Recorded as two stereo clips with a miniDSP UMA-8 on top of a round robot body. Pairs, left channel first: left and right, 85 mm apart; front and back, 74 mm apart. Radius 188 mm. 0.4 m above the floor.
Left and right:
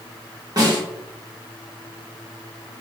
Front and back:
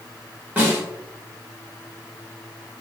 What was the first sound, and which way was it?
A snare drum, 120° right.